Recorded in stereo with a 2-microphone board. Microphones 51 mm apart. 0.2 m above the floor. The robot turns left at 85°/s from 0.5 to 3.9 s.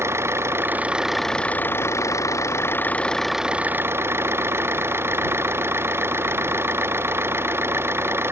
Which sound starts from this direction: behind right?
An engine running, at 0.0 s.